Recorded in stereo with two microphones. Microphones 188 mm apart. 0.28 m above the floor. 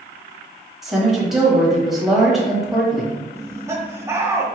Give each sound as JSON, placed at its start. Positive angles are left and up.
{"t": 0.8, "sound": "a woman speaking", "side_deg": 0, "distance_m": 1.2}
{"t": 3.3, "sound": "laughter", "side_deg": -15, "distance_m": 0.9}